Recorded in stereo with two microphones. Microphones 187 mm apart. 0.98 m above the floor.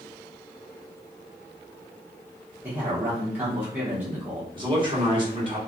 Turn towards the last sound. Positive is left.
turn(degrees=-25)  # may be behind; listen again after turning